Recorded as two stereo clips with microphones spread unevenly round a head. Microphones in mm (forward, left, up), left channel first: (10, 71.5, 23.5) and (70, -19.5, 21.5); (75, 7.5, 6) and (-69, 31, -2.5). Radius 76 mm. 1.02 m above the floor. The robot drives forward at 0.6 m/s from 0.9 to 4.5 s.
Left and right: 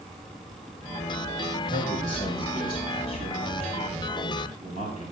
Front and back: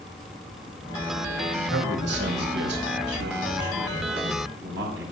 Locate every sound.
1.6 s a man speaking: 175° left, 5 m; by 5.0 s straight behind, 6.5 m